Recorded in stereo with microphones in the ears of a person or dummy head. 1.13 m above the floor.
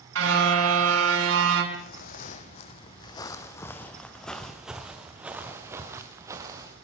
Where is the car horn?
85° right, 6 m.